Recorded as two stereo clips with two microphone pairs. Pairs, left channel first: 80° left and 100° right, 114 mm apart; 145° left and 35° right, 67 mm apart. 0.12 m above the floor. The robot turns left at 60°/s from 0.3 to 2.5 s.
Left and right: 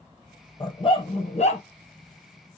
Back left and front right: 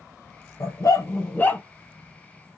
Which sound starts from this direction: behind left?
A dog barking, at 0.6 s.